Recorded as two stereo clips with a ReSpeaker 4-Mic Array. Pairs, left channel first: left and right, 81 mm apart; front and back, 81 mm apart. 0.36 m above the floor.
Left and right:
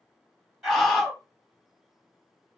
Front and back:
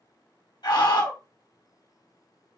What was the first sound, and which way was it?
A scream, straight ahead.